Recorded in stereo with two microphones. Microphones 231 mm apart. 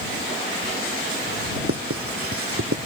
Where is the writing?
75° right (ahead or behind).